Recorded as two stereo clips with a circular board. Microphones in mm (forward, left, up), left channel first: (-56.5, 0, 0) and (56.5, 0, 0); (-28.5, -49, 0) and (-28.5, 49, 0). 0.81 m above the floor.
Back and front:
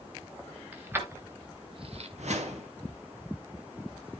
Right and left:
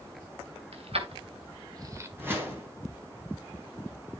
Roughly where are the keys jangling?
Left.